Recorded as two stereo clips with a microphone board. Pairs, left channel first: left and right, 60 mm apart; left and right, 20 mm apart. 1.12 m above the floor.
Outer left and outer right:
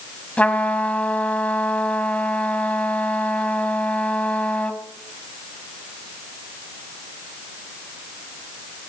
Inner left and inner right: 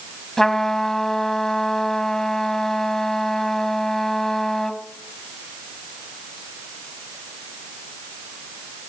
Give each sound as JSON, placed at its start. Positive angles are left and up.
{"t": 0.4, "sound": "a trumpet", "side_deg": 20, "distance_m": 1.2}